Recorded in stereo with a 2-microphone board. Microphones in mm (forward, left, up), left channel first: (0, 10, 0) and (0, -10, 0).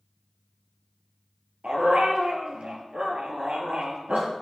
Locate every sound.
1.6 s a dog barking: 75° right (ahead or behind), 2.5 m